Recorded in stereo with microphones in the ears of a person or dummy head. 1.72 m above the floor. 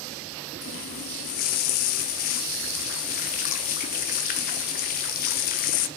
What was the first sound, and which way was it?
A running tap, 45° left (ahead or behind).